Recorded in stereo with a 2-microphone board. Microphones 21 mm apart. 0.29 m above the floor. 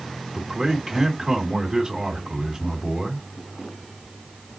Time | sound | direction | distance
0.3 | a man speaking | 20° right (ahead or behind) | 2.5 m